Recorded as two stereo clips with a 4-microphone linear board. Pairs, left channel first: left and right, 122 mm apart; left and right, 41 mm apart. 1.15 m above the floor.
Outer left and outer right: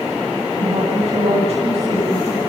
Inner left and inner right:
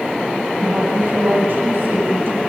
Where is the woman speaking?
60° right (ahead or behind), 8 m.